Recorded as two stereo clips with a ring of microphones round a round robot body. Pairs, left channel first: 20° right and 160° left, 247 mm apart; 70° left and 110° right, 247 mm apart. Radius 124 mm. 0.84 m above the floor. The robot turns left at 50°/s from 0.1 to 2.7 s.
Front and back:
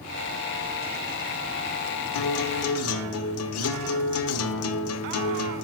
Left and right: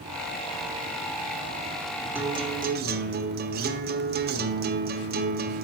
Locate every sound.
2.1 s a guitar: 30° right, 1.1 m; by 5.6 s 55° right, 1.1 m